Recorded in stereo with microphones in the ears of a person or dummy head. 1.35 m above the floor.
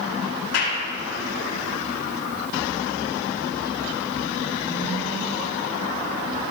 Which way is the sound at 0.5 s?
80° left.